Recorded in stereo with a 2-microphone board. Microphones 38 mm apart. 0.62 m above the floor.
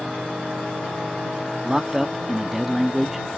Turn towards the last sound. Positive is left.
turn(degrees=-10)  # may be behind; listen again after turning